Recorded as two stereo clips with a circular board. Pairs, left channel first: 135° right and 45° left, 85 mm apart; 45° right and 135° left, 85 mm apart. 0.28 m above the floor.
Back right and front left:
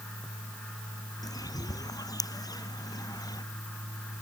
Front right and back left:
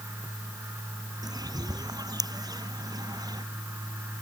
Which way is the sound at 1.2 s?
Straight behind.